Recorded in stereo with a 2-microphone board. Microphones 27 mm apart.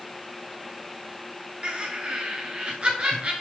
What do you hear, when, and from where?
1.6 s laughter: 45° right (ahead or behind), 1.9 m